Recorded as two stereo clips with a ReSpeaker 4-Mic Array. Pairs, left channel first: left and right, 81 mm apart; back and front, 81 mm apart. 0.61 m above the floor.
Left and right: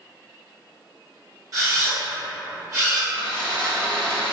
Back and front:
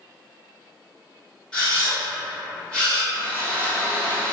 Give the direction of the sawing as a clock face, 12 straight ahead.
4 o'clock.